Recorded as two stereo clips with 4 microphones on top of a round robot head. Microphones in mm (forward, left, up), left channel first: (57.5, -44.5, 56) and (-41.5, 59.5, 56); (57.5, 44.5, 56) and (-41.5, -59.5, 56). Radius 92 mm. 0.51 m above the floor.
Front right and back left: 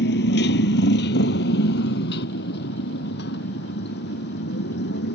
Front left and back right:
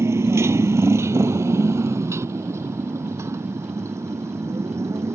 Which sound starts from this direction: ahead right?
A motorcycle, at 0.0 s.